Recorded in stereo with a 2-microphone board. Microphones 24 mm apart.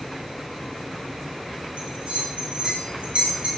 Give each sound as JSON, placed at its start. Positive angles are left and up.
{"t": 1.8, "sound": "a bell", "side_deg": -70, "distance_m": 1.3}